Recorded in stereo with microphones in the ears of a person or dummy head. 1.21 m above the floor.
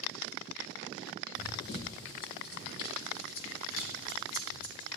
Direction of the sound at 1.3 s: 20° left (ahead or behind).